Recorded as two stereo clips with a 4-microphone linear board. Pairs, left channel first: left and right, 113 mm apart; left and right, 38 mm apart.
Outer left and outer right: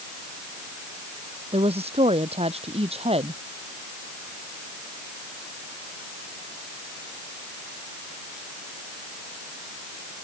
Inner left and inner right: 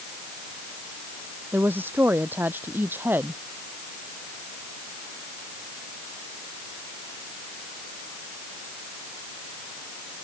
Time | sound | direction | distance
1.5 | a woman speaking | 60° right (ahead or behind) | ?